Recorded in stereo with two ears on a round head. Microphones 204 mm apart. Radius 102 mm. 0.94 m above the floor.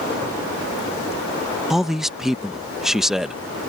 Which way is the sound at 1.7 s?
Centre (ahead or behind).